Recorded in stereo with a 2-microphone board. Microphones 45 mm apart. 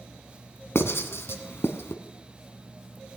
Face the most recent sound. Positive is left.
turn(degrees=70)  # may be behind; listen again after turning